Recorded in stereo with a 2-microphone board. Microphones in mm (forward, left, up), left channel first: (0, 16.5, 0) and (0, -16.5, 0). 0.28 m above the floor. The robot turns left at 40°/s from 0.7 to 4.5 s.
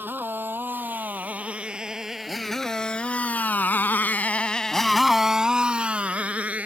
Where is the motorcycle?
75° right (ahead or behind); by 6.7 s 45° right (ahead or behind).